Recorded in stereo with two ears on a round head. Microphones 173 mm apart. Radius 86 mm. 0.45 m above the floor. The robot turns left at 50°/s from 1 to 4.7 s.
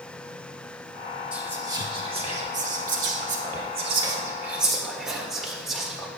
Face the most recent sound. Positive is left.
turn(degrees=0)  # may be behind; listen again after turning